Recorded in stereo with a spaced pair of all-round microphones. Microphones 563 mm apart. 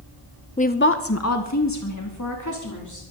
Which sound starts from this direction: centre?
A woman speaking, at 0.6 s.